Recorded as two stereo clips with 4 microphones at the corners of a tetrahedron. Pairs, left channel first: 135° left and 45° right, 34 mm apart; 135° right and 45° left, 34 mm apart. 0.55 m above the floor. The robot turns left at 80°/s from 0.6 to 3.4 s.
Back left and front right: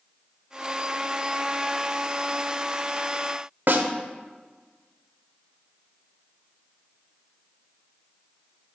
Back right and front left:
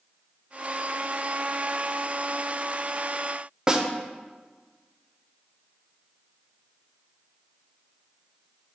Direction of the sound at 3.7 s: 20° right.